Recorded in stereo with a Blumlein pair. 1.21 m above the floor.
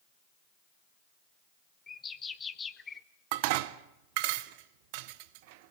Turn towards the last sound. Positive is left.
turn(degrees=-45)